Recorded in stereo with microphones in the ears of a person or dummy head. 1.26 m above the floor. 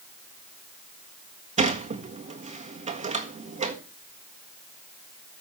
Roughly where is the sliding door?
Right.